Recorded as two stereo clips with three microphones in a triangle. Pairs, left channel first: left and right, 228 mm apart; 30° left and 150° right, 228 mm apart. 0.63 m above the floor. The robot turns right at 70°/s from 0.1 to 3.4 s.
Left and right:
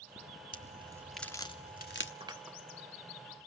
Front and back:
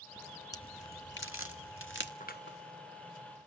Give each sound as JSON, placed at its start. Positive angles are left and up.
{"t": 0.5, "sound": "a crack", "azimuth_deg": -45, "distance_m": 1.2}
{"t": 2.2, "sound": "scissors", "azimuth_deg": -25, "distance_m": 0.7}